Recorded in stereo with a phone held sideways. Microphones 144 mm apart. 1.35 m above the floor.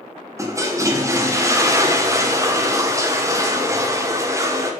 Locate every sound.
0.4 s a toilet flushing: 20° right (ahead or behind), 1.3 m